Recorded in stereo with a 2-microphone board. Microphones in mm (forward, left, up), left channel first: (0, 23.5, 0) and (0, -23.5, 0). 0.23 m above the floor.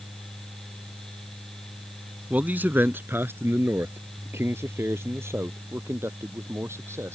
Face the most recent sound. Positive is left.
turn(degrees=-70)  # may be behind; listen again after turning